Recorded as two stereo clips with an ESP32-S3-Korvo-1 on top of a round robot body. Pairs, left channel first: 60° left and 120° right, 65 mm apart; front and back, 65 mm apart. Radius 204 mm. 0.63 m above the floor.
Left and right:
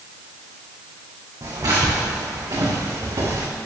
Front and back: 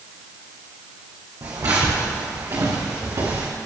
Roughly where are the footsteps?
Behind right.